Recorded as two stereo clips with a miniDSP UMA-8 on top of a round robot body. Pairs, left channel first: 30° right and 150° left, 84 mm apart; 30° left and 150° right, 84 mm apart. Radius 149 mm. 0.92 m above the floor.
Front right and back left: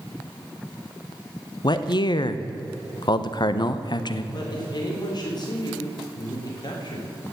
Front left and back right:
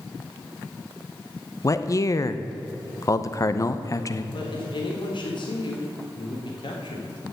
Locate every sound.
1.6 s a man speaking: 15° right, 1.0 m
4.3 s a woman speaking: 5° left, 4 m